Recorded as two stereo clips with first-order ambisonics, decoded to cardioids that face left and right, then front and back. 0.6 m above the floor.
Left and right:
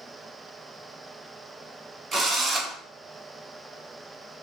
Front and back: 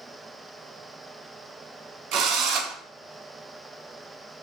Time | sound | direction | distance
2.1 | a drill | 155° right | 1.1 m